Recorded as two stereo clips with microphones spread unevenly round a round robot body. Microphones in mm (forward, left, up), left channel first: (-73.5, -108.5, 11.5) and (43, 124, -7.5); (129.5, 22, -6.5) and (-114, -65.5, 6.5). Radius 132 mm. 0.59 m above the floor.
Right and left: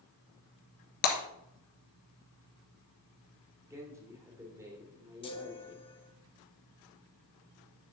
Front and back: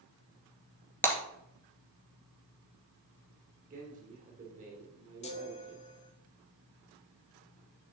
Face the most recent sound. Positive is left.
turn(degrees=-45)